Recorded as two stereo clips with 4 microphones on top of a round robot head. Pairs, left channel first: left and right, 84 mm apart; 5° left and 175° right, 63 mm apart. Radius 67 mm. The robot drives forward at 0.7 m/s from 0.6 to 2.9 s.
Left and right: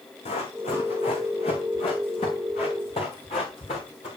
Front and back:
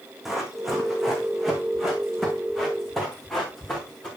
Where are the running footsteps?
95° left, 4 m; by 4.1 s 85° left, 6 m.